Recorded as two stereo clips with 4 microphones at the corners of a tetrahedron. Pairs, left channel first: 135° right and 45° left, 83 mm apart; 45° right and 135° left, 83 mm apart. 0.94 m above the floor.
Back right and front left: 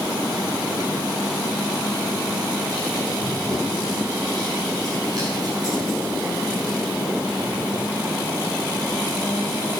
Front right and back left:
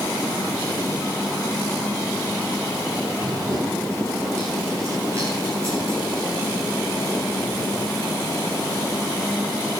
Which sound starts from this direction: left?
Running footsteps, at 3.2 s.